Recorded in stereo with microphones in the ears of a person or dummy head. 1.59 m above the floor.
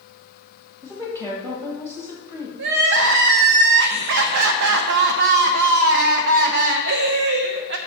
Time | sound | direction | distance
0.8 | a woman speaking | 15° right (ahead or behind) | 2 m
2.6 | crying | 65° right (ahead or behind) | 0.7 m